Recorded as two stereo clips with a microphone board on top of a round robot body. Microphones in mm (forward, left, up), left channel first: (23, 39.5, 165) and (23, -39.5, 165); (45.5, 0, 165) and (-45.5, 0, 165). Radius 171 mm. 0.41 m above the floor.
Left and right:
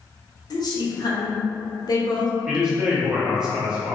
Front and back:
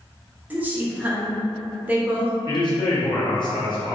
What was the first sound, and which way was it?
A woman speaking, 110° left.